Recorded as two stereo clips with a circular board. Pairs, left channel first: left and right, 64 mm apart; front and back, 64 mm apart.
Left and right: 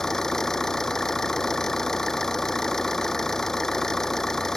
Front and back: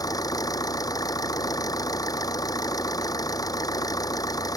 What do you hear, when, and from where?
0.0 s an engine running: 10° left